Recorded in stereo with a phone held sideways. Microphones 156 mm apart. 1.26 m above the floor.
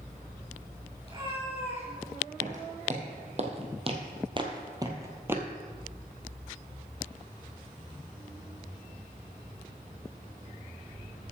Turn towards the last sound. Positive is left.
turn(degrees=-10)  # may be behind; listen again after turning